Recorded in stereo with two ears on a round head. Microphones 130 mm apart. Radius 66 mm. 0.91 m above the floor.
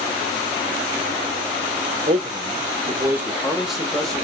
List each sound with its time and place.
2.1 s a man speaking: 40° right (ahead or behind), 0.8 m; by 4.2 s 5° left (ahead or behind), 1.4 m